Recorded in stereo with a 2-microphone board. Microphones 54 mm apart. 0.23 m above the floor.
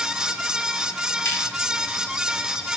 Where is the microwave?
No microwave in this recording.